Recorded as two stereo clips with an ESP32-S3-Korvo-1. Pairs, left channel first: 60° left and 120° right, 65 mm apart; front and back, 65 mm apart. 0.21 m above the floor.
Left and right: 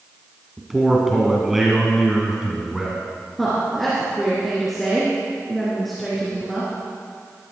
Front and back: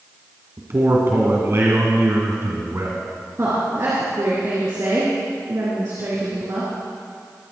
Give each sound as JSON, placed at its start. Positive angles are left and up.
{"t": 0.6, "sound": "a man speaking", "azimuth_deg": 155, "distance_m": 2.0}
{"t": 3.4, "sound": "a woman speaking", "azimuth_deg": 150, "distance_m": 3.5}